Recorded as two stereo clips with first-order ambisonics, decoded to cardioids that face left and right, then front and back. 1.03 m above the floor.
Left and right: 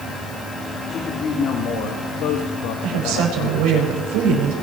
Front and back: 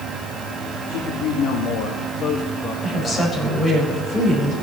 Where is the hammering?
No hammering in this recording.